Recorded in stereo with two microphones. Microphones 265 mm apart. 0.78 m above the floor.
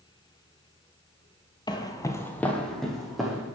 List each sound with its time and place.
1.7 s footsteps: 15° left (ahead or behind), 0.8 m; by 3.5 s centre (ahead or behind), 2 m